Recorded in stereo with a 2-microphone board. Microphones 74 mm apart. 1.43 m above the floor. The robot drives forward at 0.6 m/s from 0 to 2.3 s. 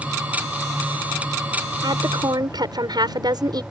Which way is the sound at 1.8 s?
65° right (ahead or behind).